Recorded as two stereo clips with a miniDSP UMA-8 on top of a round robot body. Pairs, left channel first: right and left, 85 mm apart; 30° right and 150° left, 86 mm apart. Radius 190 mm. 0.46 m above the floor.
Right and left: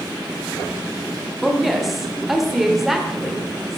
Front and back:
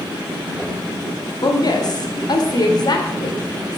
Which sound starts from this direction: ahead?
A woman speaking, at 1.4 s.